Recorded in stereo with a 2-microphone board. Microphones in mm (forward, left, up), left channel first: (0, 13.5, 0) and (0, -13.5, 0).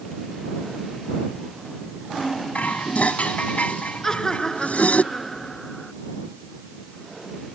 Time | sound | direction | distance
2.5 | dishes clattering | 70° left (ahead or behind) | ?
4.0 | laughter | 25° left (ahead or behind) | ?